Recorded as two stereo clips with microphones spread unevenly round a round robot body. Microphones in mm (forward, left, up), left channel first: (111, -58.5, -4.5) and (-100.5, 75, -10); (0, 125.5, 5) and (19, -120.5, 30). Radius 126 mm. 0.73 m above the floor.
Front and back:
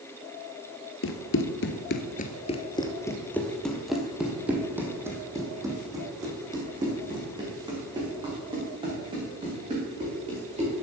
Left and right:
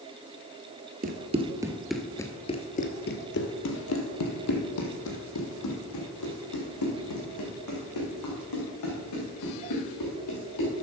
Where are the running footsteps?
45° right, 1.0 m; by 10.7 s 80° left, 5.5 m.